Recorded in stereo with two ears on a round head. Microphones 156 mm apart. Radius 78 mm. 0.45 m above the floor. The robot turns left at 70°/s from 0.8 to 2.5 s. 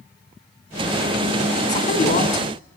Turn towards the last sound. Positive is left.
turn(degrees=60)